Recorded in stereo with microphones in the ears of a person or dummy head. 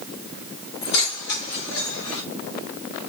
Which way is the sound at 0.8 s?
80° left.